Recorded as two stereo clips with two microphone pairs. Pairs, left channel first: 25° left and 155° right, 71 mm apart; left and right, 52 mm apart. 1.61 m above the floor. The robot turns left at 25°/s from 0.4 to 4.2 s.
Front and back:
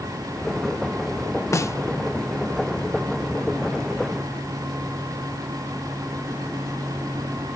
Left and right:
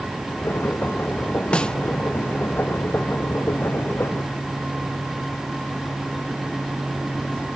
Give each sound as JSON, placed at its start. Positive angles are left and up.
{"t": 1.5, "sound": "a snare drum", "azimuth_deg": 30}